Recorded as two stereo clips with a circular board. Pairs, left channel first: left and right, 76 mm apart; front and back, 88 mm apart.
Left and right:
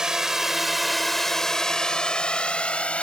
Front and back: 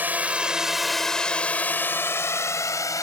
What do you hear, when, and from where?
0.0 s a drone: 160° right; by 3.0 s 25° left